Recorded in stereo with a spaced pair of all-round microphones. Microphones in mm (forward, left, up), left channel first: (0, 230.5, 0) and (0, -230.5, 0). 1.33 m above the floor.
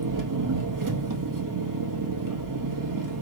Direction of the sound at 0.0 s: 40° right (ahead or behind).